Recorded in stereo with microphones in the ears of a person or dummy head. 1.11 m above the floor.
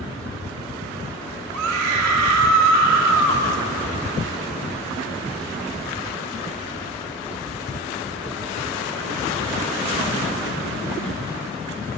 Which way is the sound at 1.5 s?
70° right (ahead or behind).